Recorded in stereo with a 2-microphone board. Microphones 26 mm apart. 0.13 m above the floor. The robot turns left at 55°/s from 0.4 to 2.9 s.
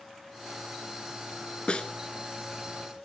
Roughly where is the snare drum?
Left.